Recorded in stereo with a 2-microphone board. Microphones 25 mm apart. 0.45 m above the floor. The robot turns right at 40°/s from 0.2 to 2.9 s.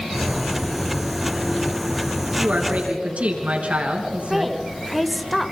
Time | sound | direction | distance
2.4 | a woman speaking | 80° right | 4.5 m
4.3 | a woman speaking | 5° right (ahead or behind) | 1.4 m